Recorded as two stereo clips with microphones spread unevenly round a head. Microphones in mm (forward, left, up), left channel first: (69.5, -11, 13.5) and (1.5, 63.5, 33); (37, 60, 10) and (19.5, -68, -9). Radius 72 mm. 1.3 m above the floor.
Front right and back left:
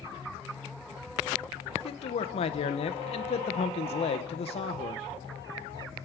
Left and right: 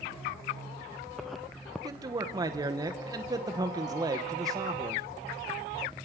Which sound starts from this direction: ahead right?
A man speaking, at 1.8 s.